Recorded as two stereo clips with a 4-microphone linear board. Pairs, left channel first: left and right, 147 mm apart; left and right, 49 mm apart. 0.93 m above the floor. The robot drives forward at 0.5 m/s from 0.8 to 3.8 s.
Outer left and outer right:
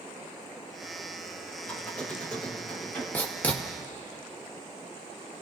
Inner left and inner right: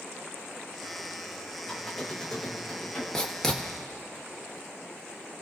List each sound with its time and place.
1.6 s a squeak: 10° left (ahead or behind), 2.5 m
3.1 s writing: 10° left (ahead or behind), 1.2 m